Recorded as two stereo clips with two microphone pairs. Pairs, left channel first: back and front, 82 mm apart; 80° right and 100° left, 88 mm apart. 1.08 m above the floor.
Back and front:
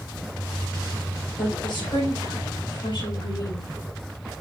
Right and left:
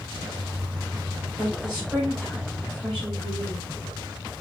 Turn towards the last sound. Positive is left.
turn(degrees=-175)